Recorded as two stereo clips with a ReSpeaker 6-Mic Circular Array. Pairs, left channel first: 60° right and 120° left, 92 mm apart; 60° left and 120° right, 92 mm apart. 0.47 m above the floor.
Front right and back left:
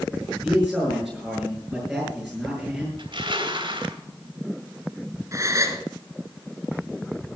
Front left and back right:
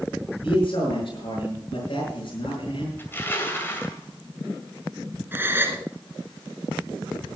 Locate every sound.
0.4 s a man speaking: 30° left, 6 m
3.0 s crushing: 125° left, 2.5 m
5.3 s a gasp: 175° left, 1.4 m